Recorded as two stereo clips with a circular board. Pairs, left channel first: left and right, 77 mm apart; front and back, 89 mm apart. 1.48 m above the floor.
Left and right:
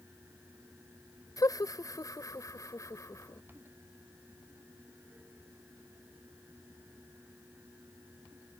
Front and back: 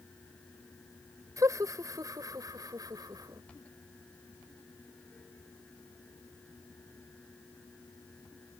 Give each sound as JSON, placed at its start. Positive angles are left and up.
{"t": 1.4, "sound": "laughter", "azimuth_deg": 130}